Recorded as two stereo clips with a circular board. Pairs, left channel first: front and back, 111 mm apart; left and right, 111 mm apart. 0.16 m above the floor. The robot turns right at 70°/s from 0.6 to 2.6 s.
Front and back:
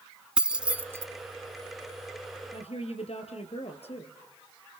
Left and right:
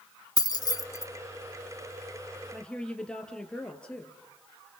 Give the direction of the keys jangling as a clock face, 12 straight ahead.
9 o'clock.